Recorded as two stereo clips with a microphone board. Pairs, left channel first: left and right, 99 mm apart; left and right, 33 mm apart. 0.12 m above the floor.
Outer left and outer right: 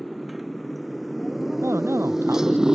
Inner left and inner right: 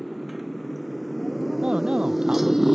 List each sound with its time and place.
0.0 s a motorcycle: centre (ahead or behind); by 2.8 s 5° right (ahead or behind)
1.6 s a man speaking: 25° right (ahead or behind)